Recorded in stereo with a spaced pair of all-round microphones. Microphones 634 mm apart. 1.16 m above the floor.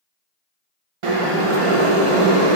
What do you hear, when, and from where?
1.0 s boiling: 55° right (ahead or behind), 0.6 m